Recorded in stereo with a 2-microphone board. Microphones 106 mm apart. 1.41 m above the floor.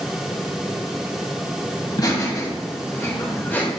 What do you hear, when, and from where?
1.8 s laughter: 45° left (ahead or behind), 2.5 m; by 3.7 s 20° left (ahead or behind), 2.5 m